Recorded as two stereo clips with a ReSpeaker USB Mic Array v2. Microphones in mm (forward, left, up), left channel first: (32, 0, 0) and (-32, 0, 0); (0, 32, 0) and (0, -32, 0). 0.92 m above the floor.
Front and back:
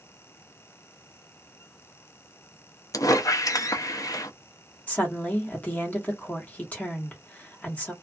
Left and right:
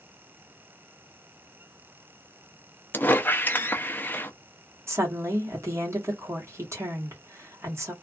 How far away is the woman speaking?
About 1.2 m.